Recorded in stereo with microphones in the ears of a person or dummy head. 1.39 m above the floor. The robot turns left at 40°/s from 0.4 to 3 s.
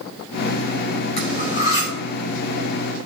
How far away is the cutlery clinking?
About 4.5 m.